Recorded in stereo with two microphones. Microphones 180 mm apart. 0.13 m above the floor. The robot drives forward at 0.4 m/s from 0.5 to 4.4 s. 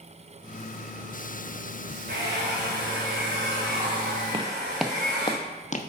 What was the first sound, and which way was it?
A hair dryer, 85° right.